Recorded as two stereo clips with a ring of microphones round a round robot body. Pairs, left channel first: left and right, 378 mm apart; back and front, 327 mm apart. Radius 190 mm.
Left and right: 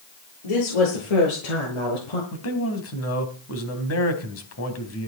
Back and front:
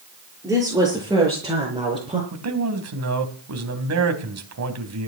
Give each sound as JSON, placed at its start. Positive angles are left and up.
{"t": 0.4, "sound": "a woman speaking", "azimuth_deg": 85, "distance_m": 8.0}
{"t": 2.3, "sound": "a man speaking", "azimuth_deg": 40, "distance_m": 3.5}